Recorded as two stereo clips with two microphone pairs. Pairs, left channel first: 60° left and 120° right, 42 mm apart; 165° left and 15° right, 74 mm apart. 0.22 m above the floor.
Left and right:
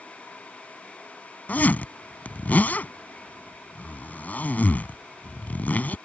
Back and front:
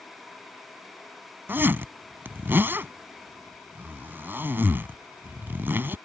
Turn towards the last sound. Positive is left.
turn(degrees=35)